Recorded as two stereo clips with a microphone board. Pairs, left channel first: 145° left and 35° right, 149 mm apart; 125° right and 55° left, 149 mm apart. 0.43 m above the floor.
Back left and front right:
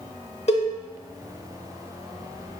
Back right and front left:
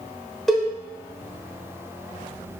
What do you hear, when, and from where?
0.5 s a cowbell: 150° left, 0.8 m